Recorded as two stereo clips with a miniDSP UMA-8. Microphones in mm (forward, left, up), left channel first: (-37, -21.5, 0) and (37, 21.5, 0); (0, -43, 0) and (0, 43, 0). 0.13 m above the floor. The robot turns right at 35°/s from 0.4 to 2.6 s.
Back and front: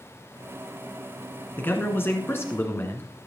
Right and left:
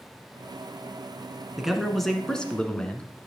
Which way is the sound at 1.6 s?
170° left.